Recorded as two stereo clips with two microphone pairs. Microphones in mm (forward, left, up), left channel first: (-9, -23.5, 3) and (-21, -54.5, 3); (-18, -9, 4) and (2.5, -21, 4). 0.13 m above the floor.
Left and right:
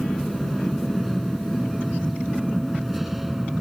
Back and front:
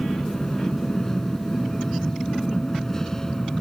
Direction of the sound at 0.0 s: 155° left.